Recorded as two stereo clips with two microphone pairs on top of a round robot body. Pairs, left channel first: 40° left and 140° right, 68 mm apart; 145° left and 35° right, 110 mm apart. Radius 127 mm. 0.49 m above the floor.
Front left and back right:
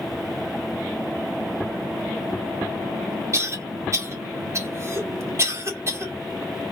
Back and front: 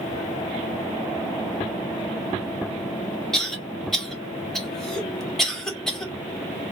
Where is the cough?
135° right, 1.8 m.